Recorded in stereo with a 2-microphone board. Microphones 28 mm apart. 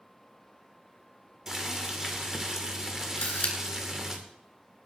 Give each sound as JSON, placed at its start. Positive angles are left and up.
{"t": 1.5, "sound": "boiling", "side_deg": -25, "distance_m": 2.5}
{"t": 3.2, "sound": "a camera shutter", "side_deg": 75, "distance_m": 2.5}